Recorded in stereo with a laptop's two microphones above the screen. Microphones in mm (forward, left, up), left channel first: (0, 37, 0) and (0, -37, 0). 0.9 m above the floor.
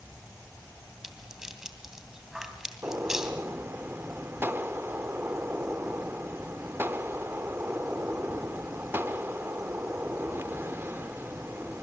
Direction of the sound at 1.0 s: 5° right (ahead or behind).